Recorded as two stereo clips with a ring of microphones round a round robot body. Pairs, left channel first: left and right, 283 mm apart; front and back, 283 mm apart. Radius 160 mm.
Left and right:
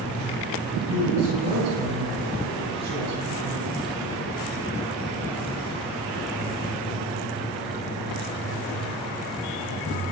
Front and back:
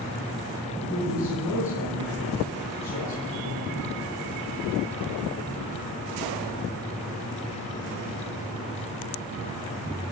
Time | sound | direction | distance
0.9 | a woman speaking | 75° right | 9.5 m